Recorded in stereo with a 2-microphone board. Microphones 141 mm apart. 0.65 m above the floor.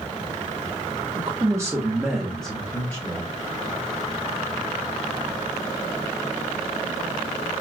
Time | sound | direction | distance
1.1 | a man speaking | 35° right (ahead or behind) | 0.9 m